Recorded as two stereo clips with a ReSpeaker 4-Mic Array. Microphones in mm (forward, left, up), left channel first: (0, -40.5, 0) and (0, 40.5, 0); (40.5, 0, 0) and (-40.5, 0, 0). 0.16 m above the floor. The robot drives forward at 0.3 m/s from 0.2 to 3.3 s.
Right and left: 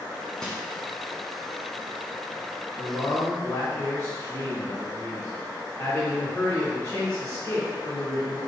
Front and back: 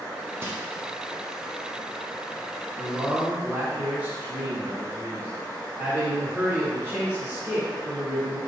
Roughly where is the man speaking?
Behind right.